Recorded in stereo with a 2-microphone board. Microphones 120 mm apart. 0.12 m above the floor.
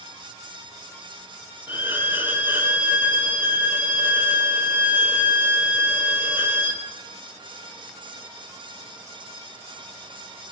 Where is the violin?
15° right (ahead or behind), 2.5 m.